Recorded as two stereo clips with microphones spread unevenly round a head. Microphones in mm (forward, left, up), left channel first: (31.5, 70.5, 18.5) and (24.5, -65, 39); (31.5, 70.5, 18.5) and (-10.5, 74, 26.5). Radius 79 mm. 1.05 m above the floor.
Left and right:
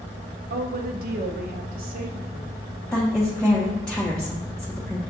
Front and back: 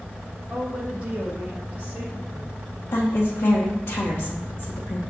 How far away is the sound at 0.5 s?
About 0.7 m.